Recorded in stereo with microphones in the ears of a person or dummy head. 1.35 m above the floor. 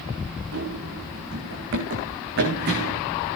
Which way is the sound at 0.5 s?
60° right (ahead or behind).